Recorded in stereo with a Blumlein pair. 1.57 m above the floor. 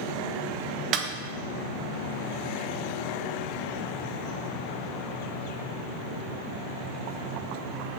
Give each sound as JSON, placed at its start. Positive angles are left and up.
{"t": 0.9, "sound": "a snare drum", "azimuth_deg": -30, "distance_m": 1.2}